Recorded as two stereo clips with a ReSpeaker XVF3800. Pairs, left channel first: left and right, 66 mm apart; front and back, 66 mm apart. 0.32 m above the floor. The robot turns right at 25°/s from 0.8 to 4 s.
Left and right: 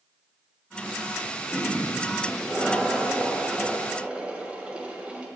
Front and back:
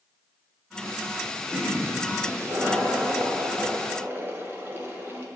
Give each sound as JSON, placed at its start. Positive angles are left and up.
{"t": 1.5, "sound": "a toilet flushing", "azimuth_deg": 145, "distance_m": 1.8}